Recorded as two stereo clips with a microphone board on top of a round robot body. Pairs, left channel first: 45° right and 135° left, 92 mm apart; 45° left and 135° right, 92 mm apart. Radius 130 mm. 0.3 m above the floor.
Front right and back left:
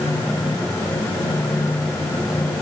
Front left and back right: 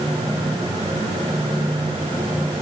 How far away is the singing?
I don't hear singing.